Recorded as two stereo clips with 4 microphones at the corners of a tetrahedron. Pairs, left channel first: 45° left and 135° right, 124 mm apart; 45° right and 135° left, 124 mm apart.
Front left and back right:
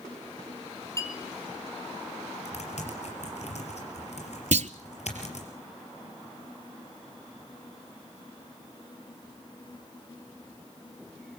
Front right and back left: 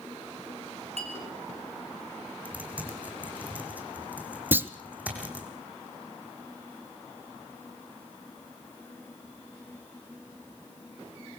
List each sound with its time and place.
1.0 s a clink: 105° left, 3 m
2.5 s typing on a keyboard: 60° left, 4 m
4.5 s a clunk: 150° right, 0.6 m